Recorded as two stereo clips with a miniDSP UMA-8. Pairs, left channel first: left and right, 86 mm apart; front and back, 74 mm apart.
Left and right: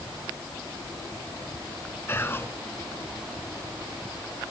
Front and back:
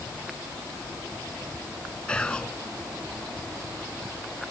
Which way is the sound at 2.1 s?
65° left.